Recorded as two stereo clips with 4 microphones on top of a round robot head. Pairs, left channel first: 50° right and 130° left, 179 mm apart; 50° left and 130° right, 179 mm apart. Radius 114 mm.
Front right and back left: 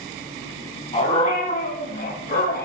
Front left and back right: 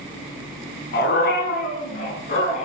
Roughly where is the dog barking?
Ahead.